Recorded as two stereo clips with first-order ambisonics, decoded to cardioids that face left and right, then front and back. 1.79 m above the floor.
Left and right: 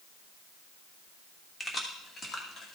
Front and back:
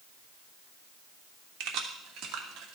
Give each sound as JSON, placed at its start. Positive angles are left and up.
{"t": 1.6, "sound": "keys jangling", "azimuth_deg": 170, "distance_m": 1.5}